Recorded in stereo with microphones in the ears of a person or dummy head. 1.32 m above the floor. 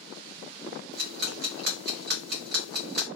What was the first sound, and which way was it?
Ticking, 55° right (ahead or behind).